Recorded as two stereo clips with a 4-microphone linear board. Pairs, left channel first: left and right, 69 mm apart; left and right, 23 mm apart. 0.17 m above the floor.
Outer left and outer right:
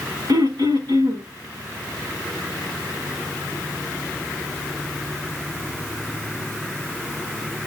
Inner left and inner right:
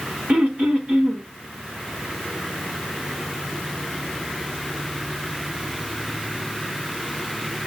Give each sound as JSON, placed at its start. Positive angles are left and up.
{"t": 0.3, "sound": "throat clearing", "side_deg": -85, "distance_m": 5.0}